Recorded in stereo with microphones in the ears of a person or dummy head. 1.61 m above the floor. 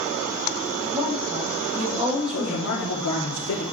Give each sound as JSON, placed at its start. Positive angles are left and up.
{"t": 0.8, "sound": "a woman speaking", "side_deg": 0, "distance_m": 9.0}
{"t": 2.3, "sound": "a man speaking", "side_deg": 80, "distance_m": 3.0}